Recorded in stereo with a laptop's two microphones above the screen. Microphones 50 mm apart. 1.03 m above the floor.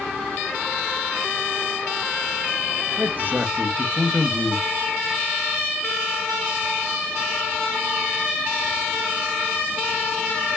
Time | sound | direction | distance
3.0 | a man speaking | 40° right (ahead or behind) | 0.6 m